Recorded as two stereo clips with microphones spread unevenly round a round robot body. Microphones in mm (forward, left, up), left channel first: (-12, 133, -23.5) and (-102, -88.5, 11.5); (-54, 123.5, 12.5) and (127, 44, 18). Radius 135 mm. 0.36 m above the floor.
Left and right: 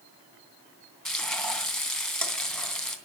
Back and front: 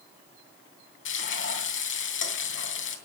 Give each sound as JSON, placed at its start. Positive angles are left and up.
{"t": 1.1, "sound": "frying", "azimuth_deg": 155, "distance_m": 3.0}